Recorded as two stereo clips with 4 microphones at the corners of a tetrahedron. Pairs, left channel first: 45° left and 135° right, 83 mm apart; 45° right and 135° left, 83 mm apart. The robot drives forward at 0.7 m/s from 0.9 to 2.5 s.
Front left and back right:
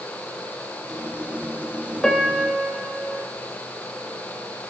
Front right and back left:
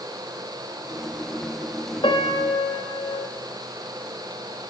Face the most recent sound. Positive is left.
turn(degrees=-50)